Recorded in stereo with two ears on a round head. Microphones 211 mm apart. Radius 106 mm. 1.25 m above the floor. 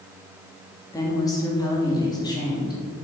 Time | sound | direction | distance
0.9 | a woman speaking | 15° left (ahead or behind) | 3 m